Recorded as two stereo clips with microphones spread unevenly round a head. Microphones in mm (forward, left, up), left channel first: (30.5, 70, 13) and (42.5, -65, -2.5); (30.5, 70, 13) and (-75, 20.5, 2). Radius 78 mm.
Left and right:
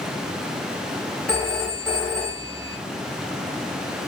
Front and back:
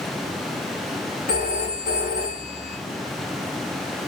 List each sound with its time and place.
1.3 s a phone ringing: 15° left, 1.8 m